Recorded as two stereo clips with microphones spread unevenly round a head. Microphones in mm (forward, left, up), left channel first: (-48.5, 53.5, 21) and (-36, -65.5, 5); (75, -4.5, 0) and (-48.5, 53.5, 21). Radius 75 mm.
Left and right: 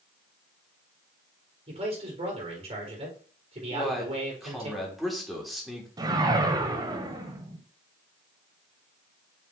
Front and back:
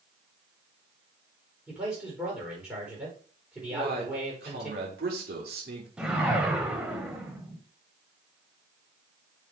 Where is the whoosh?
135° right, 1.5 m.